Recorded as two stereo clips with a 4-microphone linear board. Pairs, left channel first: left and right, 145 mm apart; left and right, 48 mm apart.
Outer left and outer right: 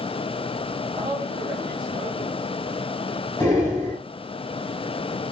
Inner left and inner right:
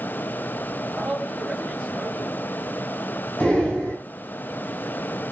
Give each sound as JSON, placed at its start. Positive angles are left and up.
{"t": 1.0, "sound": "a man speaking", "side_deg": -30, "distance_m": 3.0}
{"t": 3.4, "sound": "breathing", "side_deg": 20, "distance_m": 2.0}